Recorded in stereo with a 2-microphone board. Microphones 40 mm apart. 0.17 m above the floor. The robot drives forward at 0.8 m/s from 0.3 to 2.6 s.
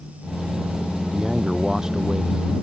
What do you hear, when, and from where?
1.1 s a man speaking: 10° right (ahead or behind); by 2.5 s 15° right (ahead or behind)